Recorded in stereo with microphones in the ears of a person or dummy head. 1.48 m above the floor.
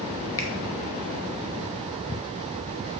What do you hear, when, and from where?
0.4 s a finger snap: 20° left (ahead or behind), 1.7 m